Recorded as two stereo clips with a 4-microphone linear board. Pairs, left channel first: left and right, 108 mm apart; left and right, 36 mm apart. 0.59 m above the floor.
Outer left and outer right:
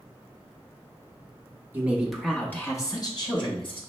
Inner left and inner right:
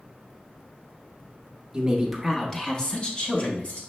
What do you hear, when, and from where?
1.7 s a woman speaking: 20° right (ahead or behind), 0.7 m; by 3.8 s 55° left (ahead or behind), 1.1 m